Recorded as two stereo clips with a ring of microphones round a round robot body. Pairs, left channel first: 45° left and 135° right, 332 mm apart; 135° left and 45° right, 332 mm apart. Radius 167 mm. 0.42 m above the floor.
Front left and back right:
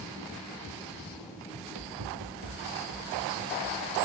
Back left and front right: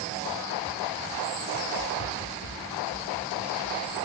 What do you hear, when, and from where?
1.5 s running footsteps: 170° right, 5 m; by 4.0 s straight behind, 6 m